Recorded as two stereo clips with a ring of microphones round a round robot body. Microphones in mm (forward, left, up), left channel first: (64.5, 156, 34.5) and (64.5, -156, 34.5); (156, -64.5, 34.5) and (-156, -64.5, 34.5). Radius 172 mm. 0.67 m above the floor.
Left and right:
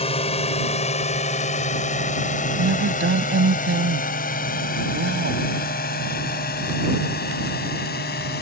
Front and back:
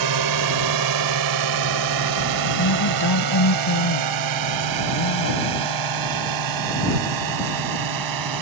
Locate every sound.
0.0 s a drone: 160° left; by 8.4 s 155° left
2.6 s a woman speaking: 35° right